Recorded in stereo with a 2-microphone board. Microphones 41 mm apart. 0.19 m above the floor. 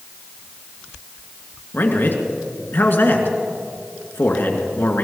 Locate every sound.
1.7 s a man speaking: 55° left (ahead or behind), 2.5 m